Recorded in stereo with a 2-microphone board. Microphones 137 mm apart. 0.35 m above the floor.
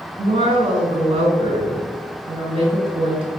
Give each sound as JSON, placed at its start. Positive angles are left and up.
{"t": 0.2, "sound": "a woman speaking", "side_deg": -40, "distance_m": 2.5}